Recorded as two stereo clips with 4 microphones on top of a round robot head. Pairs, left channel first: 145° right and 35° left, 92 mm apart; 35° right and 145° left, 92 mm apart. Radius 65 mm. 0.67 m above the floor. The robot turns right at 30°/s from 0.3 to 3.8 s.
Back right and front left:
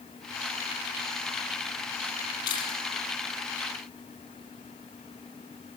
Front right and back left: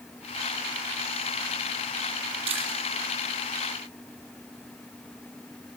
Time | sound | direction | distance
2.5 | chewing | 170° left | 4 m